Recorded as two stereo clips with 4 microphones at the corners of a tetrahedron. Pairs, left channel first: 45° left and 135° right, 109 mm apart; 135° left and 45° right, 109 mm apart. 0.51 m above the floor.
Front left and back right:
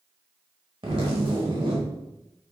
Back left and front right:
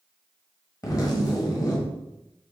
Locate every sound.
0.8 s a zipper: 170° right, 1.3 m